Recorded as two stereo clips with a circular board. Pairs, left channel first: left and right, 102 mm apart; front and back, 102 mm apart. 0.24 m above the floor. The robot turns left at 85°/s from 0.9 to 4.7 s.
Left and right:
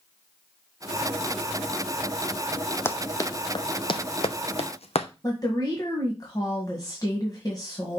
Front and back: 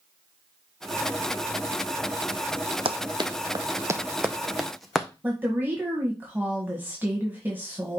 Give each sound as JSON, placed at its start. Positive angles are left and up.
{"t": 2.9, "sound": "running footsteps", "azimuth_deg": 160, "distance_m": 0.7}
{"t": 5.2, "sound": "a woman speaking", "azimuth_deg": 115, "distance_m": 1.6}